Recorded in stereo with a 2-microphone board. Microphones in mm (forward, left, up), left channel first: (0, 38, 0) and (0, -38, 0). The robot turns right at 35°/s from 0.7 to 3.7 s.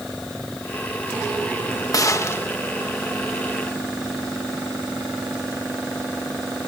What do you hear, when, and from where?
1.9 s a gunshot: 45° left (ahead or behind); by 2.5 s 30° left (ahead or behind)